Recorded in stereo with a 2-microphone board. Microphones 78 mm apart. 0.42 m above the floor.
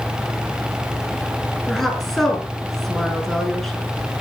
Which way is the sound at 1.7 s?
5° left (ahead or behind).